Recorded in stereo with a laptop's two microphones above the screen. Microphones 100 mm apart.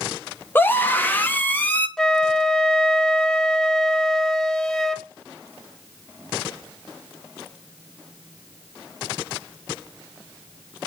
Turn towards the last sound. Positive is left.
turn(degrees=5)  # may be behind; listen again after turning